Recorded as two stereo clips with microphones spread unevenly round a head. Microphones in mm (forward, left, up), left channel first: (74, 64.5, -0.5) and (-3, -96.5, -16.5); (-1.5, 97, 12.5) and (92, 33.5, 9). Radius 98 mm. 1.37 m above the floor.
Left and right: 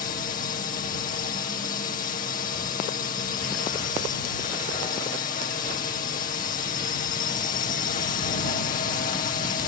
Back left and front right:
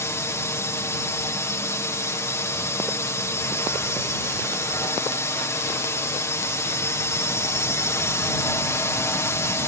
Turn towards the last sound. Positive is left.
turn(degrees=90)